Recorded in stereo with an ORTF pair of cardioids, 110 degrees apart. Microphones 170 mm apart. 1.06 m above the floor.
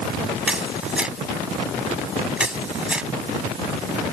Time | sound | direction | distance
0.5 | a camera shutter | 5° right | ?